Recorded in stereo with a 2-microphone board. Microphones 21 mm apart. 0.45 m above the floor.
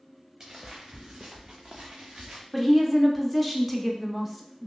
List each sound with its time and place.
0.4 s footsteps: 30° right (ahead or behind), 1.4 m; by 2.4 s 70° right (ahead or behind), 1.4 m
2.5 s a woman speaking: 5° right (ahead or behind), 0.7 m